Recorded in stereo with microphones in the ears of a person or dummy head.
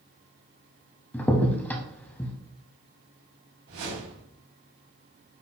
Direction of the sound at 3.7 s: 75° right (ahead or behind).